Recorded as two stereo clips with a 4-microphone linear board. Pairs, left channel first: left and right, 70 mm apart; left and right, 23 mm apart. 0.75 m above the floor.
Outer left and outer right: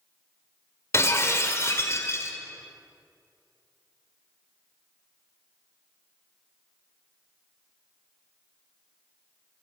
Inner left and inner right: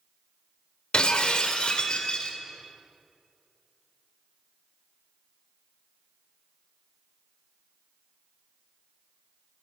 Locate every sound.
0.9 s breaking glass: 40° left (ahead or behind), 1.8 m